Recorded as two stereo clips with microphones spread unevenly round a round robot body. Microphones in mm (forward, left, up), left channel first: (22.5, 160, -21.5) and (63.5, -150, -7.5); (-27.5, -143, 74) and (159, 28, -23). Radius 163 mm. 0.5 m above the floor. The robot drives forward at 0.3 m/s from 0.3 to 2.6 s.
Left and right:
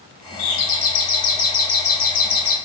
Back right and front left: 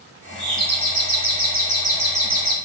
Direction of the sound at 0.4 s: 90° left.